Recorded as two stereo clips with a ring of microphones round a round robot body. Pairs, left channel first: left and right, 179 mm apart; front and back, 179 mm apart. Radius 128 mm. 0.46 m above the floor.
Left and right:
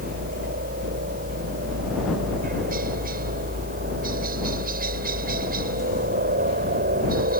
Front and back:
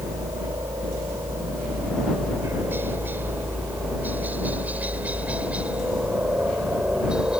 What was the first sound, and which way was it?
A helicopter, 105° right.